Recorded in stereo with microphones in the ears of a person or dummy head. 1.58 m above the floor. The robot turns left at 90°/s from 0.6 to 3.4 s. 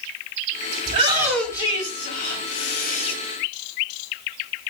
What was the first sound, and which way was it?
A shout, 130° right.